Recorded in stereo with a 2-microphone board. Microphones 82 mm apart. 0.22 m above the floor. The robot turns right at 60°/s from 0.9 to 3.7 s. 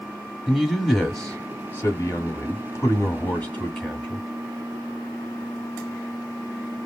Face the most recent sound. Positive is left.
turn(degrees=165)